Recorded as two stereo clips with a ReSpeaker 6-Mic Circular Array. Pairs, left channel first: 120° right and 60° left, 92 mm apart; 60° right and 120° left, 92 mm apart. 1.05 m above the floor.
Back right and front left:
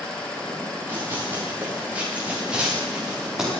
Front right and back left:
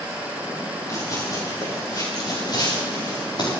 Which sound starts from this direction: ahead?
Running footsteps, at 0.9 s.